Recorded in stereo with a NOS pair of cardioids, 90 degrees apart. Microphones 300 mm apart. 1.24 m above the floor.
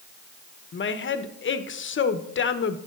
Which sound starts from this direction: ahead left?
A woman speaking, at 0.7 s.